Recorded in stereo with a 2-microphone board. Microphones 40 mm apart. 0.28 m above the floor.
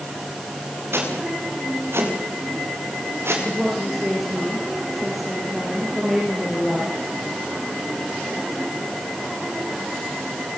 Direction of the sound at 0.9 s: 80° right.